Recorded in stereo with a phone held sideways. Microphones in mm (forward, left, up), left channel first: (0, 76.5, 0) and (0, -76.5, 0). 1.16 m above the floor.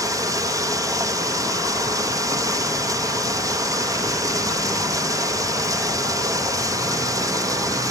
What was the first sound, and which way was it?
Running water, 20° right (ahead or behind).